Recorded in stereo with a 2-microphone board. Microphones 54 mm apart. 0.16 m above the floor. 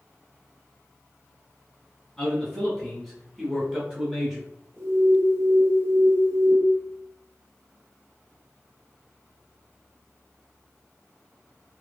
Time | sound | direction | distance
2.2 | a man speaking | 10° left (ahead or behind) | 1.2 m
4.8 | an alarm | 60° right (ahead or behind) | 1.3 m